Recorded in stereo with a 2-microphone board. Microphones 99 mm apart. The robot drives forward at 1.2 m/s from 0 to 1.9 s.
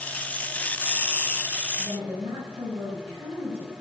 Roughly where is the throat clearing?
I don't hear throat clearing.